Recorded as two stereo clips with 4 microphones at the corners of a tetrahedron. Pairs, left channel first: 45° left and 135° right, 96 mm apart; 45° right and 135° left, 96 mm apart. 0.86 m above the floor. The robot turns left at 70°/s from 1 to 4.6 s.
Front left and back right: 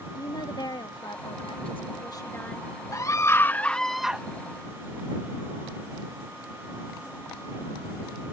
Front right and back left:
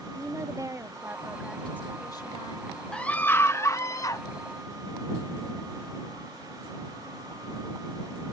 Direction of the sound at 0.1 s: 80° left.